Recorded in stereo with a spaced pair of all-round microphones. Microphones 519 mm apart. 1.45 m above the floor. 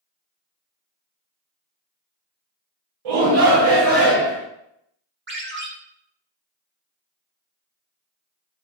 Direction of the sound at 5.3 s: 20° right (ahead or behind).